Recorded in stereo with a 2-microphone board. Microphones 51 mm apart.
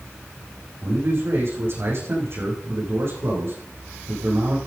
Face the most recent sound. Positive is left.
turn(degrees=-50)  # may be behind; listen again after turning